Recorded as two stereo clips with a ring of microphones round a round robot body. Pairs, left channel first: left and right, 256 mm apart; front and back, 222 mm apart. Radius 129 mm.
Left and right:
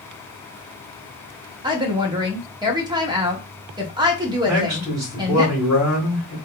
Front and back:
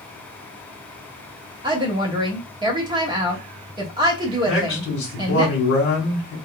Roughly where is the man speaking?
Ahead.